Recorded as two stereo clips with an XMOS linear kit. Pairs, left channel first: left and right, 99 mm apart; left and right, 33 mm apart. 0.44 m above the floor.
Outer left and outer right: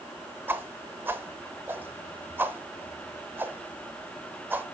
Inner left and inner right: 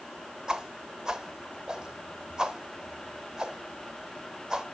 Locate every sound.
0.5 s a whoosh: 20° right (ahead or behind), 0.8 m